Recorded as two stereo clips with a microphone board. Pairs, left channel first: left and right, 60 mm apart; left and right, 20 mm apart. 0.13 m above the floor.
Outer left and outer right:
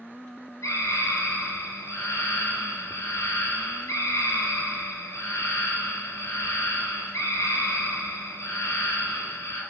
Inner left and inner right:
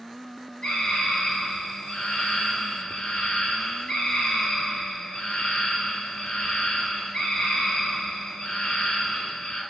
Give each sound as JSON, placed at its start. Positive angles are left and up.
{"t": 0.6, "sound": "a scream", "side_deg": 55, "distance_m": 3.0}